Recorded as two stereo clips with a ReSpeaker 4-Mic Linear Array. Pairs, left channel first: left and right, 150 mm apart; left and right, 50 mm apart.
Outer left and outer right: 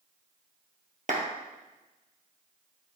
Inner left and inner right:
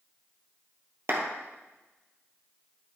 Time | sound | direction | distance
1.1 | a clap | 55° right (ahead or behind) | 2.5 m